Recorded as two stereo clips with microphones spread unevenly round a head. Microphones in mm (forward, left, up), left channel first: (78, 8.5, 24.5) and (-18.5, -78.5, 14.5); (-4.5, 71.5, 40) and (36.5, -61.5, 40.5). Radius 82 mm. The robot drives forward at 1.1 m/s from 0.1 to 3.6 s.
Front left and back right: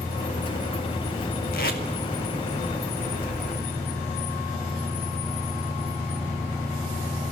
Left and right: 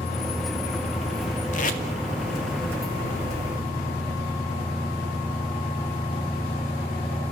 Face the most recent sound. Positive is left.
turn(degrees=130)